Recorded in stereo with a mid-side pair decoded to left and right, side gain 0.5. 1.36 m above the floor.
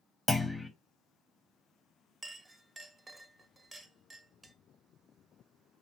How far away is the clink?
About 0.7 m.